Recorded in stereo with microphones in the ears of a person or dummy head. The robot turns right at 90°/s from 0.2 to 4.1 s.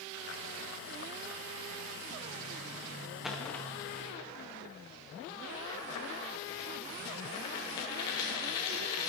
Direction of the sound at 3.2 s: Centre (ahead or behind).